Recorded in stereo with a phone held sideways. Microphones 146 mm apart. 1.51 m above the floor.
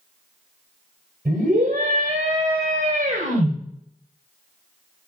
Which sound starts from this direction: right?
A scream, at 1.2 s.